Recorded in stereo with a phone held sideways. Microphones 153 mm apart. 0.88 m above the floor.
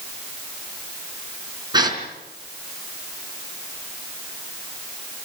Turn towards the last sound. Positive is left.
turn(degrees=-25)  # may be behind; listen again after turning